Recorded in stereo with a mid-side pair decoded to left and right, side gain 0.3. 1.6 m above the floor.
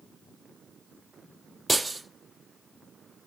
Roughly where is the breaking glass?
Ahead.